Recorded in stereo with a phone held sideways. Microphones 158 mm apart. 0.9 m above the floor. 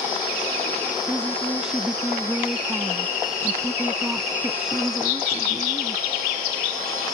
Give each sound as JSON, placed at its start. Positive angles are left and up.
{"t": 1.1, "sound": "a woman speaking", "side_deg": -5}